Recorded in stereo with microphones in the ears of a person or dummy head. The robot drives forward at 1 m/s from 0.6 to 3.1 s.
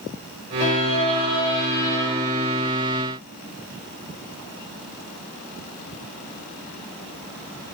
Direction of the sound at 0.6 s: 40° left (ahead or behind).